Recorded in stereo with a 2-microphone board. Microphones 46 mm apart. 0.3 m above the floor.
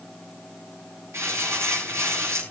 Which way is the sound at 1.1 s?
75° right (ahead or behind).